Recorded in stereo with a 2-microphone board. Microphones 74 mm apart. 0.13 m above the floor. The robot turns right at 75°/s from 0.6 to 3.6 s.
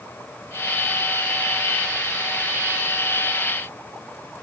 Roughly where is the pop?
I don't hear a pop.